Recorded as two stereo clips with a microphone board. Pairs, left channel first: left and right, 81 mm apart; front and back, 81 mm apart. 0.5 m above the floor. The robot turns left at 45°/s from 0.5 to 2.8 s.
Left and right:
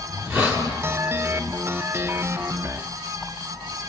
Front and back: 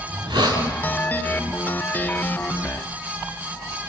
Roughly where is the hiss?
Behind right.